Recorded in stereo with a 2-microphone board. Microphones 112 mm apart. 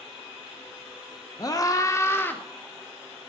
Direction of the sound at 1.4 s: 35° left (ahead or behind).